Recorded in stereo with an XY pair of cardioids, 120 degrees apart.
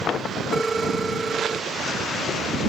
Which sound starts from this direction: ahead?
A phone ringing, at 0.5 s.